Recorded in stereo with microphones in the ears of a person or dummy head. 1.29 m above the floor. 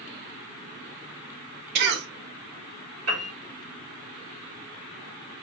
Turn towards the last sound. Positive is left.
turn(degrees=-75)  # may be behind; listen again after turning